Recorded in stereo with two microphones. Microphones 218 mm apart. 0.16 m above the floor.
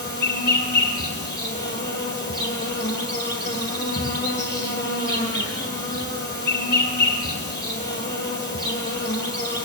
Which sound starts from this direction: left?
An insect, at 0.0 s.